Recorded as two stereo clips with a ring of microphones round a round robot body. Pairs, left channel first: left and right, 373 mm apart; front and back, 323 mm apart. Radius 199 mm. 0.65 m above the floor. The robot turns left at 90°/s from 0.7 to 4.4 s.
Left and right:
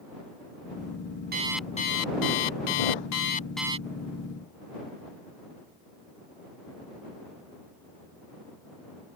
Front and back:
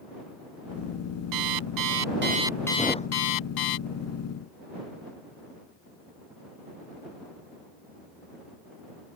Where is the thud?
90° left; by 3.1 s 60° left.